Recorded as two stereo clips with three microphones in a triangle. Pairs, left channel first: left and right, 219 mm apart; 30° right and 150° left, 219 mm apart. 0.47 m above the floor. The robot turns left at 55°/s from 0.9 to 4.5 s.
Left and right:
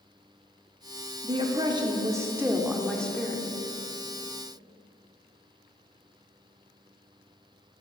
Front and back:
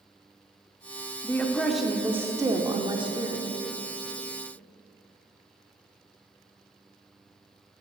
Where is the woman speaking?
90° right, 0.7 m; by 3.5 s 145° left, 0.7 m.